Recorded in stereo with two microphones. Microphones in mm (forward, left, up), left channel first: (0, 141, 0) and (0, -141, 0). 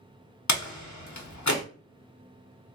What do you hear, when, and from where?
0.5 s a door slam: 80° left, 0.8 m